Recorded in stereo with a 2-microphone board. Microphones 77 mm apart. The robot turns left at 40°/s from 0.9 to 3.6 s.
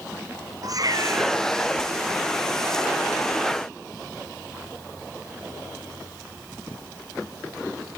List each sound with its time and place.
0.6 s a cat meowing: 55° right (ahead or behind); by 1.4 s 35° right (ahead or behind)